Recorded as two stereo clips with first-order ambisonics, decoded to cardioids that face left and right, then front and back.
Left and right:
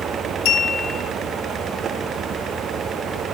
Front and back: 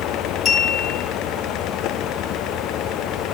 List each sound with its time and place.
0.5 s a clink: 70° left, 5 m